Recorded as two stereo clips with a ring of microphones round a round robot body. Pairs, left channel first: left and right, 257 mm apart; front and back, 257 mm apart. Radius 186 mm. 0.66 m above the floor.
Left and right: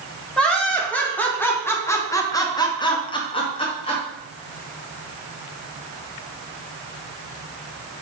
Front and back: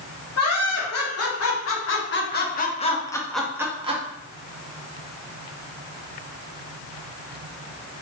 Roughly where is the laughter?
Ahead.